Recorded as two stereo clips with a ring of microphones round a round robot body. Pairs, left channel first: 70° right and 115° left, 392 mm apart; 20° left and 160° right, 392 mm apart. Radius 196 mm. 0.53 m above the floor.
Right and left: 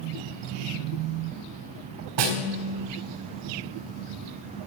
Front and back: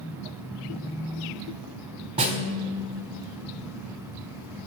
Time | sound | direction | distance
2.2 | a snare drum | 125° left | 3.5 m